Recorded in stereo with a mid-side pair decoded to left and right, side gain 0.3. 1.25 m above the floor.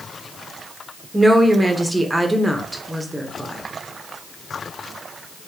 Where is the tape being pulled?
No tape being pulled in this recording.